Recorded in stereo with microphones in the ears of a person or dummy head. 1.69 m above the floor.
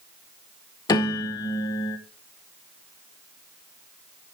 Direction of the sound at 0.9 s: 20° left (ahead or behind).